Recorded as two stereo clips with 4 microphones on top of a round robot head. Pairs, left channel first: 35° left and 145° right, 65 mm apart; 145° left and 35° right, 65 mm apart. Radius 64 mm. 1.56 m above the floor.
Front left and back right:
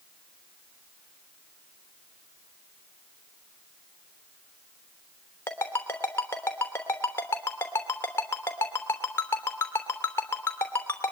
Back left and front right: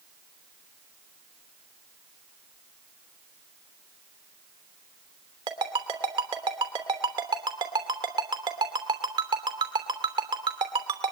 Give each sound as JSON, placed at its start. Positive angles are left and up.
{"t": 5.5, "sound": "a ringtone", "azimuth_deg": -25, "distance_m": 3.0}